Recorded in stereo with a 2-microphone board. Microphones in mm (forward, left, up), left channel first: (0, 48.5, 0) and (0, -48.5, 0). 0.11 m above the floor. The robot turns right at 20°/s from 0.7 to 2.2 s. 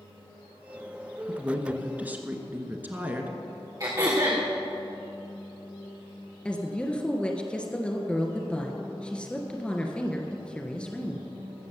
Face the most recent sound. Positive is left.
turn(degrees=10)  # may be behind; listen again after turning